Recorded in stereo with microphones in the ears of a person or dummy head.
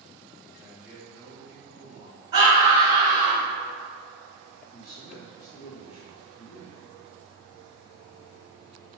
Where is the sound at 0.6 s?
10° right (ahead or behind), 2.0 m.